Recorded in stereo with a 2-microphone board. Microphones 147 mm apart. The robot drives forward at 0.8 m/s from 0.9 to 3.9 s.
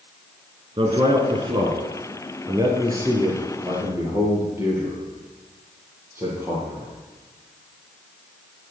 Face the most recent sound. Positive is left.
turn(degrees=-20)  # may be behind; listen again after turning